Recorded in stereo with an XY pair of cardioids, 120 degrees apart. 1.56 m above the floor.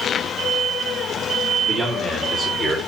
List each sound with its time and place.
1.6 s a man speaking: 5° left, 5 m; by 2.8 s 15° left, 5 m